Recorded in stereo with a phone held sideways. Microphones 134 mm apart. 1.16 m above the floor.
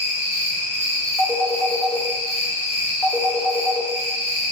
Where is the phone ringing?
10° left (ahead or behind), 0.8 m.